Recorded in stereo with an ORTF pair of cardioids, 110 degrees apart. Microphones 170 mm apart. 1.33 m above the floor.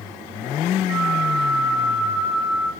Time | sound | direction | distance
0.9 | a flute | 35° right | 1.4 m